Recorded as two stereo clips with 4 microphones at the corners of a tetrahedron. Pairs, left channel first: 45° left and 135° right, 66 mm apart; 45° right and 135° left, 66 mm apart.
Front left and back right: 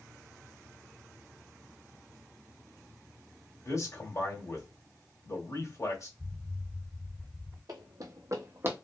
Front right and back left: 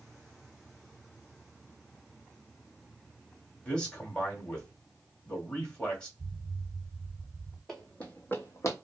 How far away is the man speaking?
About 1.6 m.